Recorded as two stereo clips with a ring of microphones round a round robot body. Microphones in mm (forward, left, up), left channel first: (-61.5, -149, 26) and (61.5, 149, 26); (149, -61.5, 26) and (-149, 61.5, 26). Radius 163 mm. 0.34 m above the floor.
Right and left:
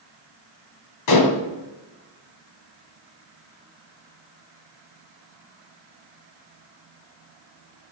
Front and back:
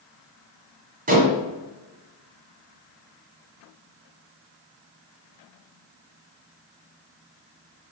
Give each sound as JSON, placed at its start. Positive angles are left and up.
{"t": 1.1, "sound": "dishes clattering", "azimuth_deg": -140, "distance_m": 1.9}